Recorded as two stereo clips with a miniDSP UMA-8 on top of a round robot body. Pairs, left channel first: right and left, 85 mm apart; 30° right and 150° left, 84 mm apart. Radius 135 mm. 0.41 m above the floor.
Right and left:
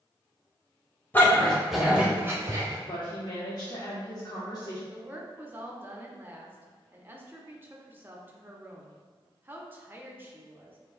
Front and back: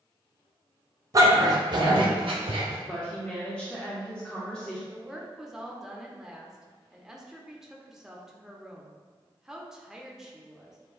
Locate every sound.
1.1 s a dog barking: 160° right, 1.0 m; by 2.8 s 140° left, 1.0 m
2.9 s a woman speaking: 110° right, 1.2 m
4.9 s a woman speaking: 70° left, 0.9 m